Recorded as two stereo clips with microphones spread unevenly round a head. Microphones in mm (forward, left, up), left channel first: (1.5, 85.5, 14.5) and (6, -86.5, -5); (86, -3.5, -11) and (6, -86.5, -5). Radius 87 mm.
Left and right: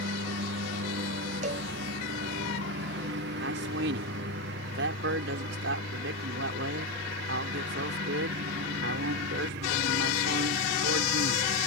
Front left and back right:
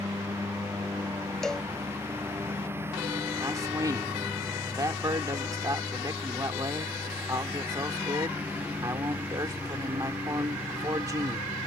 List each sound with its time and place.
0.0 s a lawn mower: 70° right; by 11.7 s 60° right
1.4 s a cowbell: 40° right
3.4 s a man speaking: 75° right